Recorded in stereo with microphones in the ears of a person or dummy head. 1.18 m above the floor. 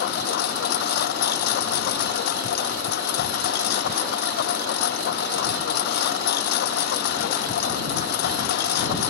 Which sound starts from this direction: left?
A lawn mower, at 0.0 s.